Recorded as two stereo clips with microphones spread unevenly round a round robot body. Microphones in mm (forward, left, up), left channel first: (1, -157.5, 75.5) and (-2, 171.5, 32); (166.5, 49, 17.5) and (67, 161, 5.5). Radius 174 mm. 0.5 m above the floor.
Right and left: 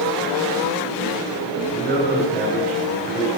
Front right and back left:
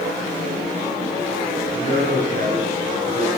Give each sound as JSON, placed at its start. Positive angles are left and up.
{"t": 1.6, "sound": "a man speaking", "azimuth_deg": 155, "distance_m": 3.0}